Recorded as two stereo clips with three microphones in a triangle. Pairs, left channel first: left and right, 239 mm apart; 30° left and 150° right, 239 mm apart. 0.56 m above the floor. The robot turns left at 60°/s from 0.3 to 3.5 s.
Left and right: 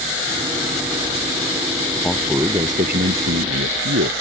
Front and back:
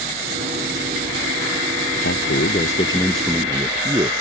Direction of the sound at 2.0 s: 10° left.